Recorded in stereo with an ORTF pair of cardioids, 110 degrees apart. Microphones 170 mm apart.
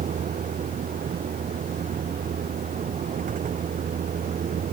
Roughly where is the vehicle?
Ahead right.